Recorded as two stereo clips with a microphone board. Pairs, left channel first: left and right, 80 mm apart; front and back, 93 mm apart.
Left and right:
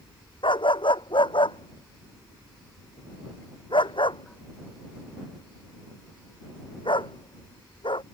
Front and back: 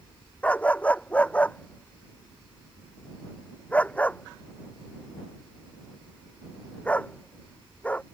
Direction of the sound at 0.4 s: 75° left.